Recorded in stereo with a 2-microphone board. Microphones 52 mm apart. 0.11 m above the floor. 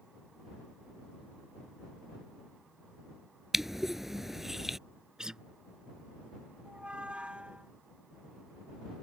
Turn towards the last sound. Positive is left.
turn(degrees=-20)  # may be behind; listen again after turning